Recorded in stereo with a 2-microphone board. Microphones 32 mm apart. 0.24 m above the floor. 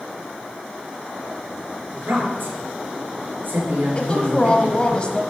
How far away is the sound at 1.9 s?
About 5 m.